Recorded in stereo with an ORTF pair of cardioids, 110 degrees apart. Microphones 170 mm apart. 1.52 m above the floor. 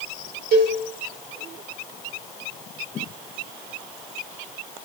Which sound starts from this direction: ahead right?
A cowbell, at 0.5 s.